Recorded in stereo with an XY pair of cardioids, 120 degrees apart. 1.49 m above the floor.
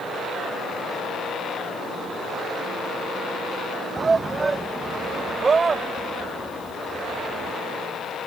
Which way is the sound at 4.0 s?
25° right.